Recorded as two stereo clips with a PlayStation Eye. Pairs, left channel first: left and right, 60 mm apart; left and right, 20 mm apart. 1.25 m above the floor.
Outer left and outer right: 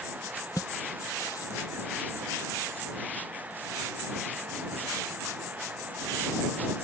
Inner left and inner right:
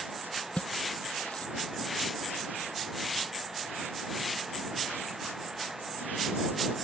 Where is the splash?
70° left (ahead or behind).